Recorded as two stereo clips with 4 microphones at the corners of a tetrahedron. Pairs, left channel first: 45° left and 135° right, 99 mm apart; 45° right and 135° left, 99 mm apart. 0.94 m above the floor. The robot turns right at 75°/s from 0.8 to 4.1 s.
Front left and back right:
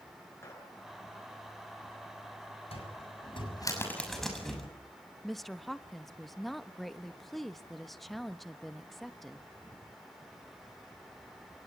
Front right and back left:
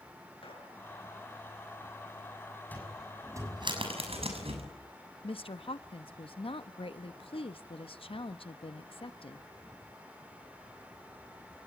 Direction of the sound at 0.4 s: 15° right.